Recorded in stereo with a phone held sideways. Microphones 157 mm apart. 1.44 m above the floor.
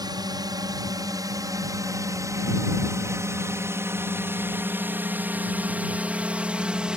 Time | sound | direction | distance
0.0 | a drone | 25° right (ahead or behind) | ?